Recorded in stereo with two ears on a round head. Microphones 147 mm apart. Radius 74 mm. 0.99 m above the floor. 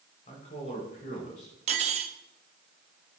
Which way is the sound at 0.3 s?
45° left (ahead or behind).